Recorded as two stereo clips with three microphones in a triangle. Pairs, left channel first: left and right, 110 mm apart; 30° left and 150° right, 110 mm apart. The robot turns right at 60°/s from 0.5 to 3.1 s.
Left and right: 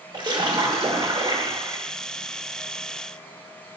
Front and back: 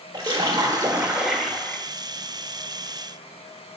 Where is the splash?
115° right, 1.3 m; by 1.8 s 35° right, 1.3 m.